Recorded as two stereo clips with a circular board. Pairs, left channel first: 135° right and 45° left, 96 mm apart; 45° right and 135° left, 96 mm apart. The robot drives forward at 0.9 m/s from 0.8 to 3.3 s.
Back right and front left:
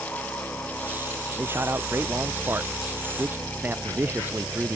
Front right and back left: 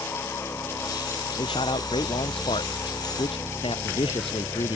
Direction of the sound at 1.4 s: 20° right.